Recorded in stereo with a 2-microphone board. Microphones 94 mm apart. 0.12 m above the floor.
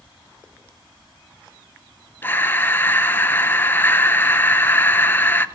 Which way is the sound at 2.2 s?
25° left (ahead or behind).